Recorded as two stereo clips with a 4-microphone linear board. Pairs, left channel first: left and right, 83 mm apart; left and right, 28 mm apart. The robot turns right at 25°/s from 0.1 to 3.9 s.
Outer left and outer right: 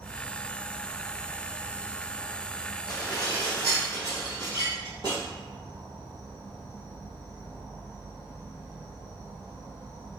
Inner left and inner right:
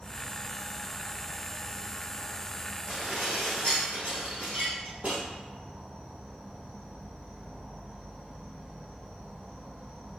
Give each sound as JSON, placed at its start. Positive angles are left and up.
{"t": 0.0, "sound": "an insect", "azimuth_deg": 140, "distance_m": 1.4}
{"t": 2.9, "sound": "dishes clattering", "side_deg": -25, "distance_m": 1.8}